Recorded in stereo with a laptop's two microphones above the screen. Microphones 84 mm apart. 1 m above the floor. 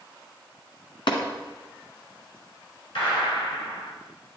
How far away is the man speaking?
No man speaking in this recording.